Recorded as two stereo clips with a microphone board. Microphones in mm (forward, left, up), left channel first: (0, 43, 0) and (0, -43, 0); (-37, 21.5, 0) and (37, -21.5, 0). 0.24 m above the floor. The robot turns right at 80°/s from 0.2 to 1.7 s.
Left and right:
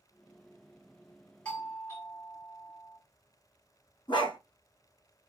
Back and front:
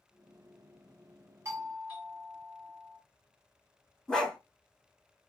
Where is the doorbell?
10° left, 3 m; by 3.0 s 30° left, 3 m.